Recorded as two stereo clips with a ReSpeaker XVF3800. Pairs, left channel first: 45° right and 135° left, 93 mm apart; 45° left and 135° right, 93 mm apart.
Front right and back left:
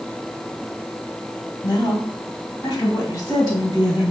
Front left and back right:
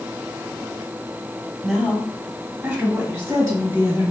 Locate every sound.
1.6 s a woman speaking: 50° right, 1.2 m; by 4.1 s 90° right, 2 m